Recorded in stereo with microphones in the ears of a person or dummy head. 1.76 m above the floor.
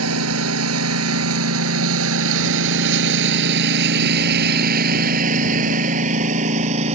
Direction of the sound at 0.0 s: 80° right.